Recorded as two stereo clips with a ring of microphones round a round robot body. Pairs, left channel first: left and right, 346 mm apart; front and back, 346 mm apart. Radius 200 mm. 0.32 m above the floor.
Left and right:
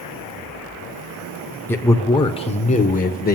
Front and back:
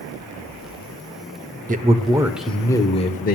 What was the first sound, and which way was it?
A man speaking, 165° left.